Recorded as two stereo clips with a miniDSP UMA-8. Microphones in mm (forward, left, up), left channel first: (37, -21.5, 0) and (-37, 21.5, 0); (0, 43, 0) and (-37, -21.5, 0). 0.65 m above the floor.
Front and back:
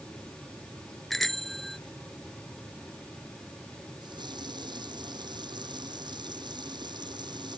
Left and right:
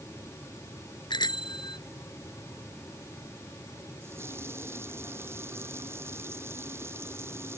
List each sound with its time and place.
1.1 s a bicycle bell: 55° left
4.0 s a running tap: straight behind